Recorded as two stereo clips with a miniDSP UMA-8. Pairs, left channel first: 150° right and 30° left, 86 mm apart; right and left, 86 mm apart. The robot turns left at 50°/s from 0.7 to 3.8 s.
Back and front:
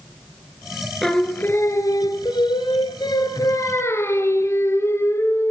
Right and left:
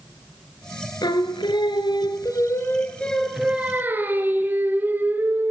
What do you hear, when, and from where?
1.0 s singing: 65° right, 1.4 m; by 5.5 s 155° left, 1.4 m